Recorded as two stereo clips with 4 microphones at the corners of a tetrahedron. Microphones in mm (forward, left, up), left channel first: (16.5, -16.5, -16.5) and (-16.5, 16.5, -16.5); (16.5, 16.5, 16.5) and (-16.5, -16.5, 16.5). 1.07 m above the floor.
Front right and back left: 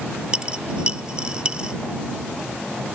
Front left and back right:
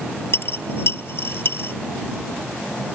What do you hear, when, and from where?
0.3 s a dropped coin: 70° left